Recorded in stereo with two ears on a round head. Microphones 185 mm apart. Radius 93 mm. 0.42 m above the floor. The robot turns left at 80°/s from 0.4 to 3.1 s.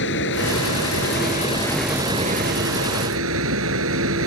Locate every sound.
0.0 s running water: 115° left; by 4.3 s 100° right